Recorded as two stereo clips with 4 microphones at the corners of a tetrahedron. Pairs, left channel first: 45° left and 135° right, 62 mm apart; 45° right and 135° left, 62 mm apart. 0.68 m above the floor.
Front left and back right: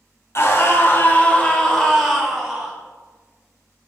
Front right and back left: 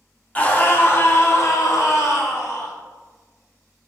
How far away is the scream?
About 1.3 m.